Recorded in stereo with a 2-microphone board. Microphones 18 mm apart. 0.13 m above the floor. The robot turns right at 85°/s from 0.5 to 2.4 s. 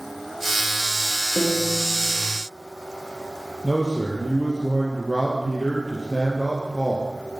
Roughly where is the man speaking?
Centre.